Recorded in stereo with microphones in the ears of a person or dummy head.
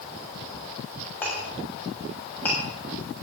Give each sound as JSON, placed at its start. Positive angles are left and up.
{"t": 1.2, "sound": "a clink", "side_deg": 5, "distance_m": 7.5}